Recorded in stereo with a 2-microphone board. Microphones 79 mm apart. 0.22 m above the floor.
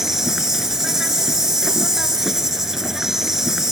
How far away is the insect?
About 1.8 m.